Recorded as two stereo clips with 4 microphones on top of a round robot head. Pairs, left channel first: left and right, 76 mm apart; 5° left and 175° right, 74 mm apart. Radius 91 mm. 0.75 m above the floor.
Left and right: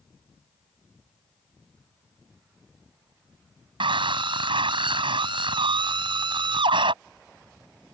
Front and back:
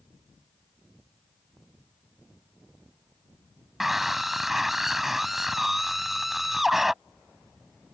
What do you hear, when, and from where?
3.8 s a scream: 90° right